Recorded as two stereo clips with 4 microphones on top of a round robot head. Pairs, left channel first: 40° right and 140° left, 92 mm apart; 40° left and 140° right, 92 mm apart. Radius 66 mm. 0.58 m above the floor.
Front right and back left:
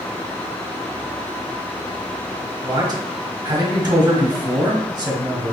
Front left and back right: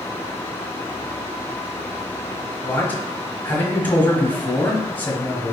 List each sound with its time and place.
2.6 s a man speaking: 105° left, 1.3 m